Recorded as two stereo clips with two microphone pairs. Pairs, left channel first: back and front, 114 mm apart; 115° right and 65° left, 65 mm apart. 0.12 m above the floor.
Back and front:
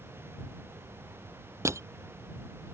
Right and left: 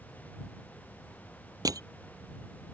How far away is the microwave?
I don't hear a microwave.